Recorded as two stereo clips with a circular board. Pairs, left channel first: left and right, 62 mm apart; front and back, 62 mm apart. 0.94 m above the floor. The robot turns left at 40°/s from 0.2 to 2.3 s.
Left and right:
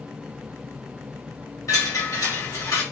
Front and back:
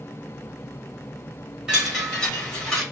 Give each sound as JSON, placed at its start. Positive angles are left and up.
{"t": 1.7, "sound": "a chime", "azimuth_deg": 100, "distance_m": 1.3}